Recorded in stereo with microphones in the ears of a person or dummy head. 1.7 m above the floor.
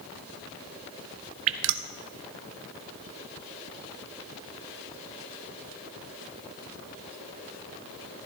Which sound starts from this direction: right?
Dripping, at 1.5 s.